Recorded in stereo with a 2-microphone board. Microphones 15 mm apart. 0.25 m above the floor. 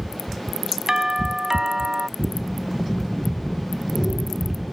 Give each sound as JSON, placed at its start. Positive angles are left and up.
{"t": 0.9, "sound": "a doorbell", "side_deg": -40}
{"t": 2.2, "sound": "breathing", "side_deg": 35}